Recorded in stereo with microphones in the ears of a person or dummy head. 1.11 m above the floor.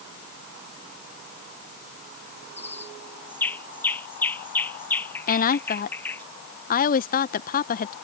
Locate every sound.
2.6 s a bird: 5° left (ahead or behind)
5.3 s a woman speaking: 35° left (ahead or behind)